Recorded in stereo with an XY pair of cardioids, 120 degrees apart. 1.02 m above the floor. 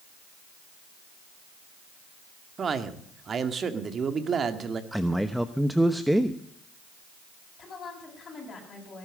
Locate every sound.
2.6 s a man speaking: 40° right, 1.8 m
4.9 s a man speaking: 5° right, 0.8 m
7.6 s a woman speaking: 35° left, 8 m